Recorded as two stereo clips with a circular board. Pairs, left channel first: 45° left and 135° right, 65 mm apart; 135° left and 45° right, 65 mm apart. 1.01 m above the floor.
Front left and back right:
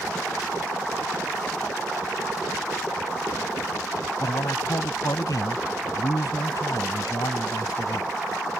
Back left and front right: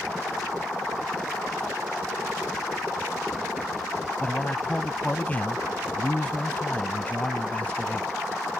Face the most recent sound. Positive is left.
turn(degrees=70)